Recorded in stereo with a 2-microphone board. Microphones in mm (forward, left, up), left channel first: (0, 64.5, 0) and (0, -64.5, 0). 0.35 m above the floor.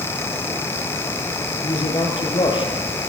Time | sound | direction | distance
1.6 | a man speaking | 40° left (ahead or behind) | 7.5 m